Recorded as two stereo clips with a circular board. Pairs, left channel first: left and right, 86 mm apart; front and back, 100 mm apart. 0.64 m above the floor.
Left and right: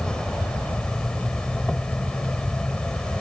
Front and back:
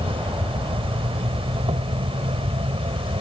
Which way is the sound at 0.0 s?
170° left.